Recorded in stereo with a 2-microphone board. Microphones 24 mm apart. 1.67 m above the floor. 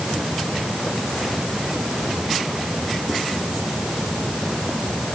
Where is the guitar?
I don't hear a guitar.